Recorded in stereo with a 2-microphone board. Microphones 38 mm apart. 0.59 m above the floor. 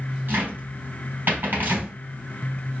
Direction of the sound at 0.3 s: 60° right (ahead or behind).